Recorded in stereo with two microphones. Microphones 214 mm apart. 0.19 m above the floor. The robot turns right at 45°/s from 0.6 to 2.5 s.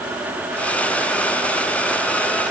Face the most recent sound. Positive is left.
No sound to turn to.